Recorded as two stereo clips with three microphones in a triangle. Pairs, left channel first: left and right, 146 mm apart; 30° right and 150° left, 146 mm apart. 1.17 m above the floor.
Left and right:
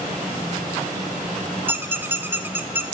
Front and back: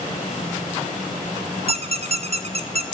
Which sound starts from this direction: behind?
A squeak, at 1.7 s.